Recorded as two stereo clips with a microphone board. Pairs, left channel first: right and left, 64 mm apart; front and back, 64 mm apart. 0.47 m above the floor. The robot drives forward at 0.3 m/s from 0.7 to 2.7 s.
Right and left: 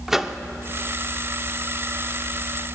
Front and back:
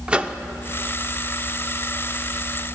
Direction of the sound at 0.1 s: 160° left.